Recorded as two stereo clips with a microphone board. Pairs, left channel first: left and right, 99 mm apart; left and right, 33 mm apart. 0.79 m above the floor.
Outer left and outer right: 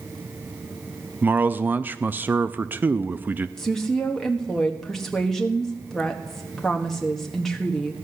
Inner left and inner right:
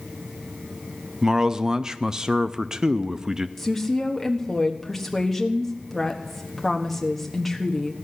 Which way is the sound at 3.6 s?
5° left (ahead or behind).